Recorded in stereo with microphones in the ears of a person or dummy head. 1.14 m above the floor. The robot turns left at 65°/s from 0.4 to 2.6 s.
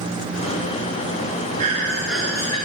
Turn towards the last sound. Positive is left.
turn(degrees=145)